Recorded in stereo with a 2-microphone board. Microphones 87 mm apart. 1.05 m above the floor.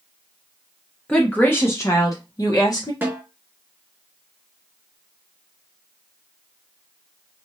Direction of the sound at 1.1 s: 10° left (ahead or behind).